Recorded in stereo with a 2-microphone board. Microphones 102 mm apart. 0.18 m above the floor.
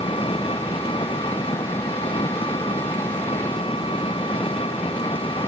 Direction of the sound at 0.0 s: 60° left (ahead or behind).